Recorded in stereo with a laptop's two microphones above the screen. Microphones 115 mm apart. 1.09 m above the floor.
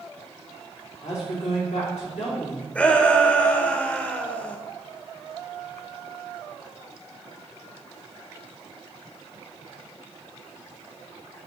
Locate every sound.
1.0 s a woman speaking: 80° left, 3.5 m
2.8 s a shout: 10° left (ahead or behind), 1.1 m